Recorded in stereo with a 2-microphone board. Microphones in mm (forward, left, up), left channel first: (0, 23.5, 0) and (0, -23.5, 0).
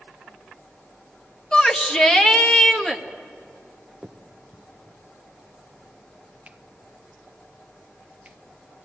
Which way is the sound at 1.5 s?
20° left (ahead or behind).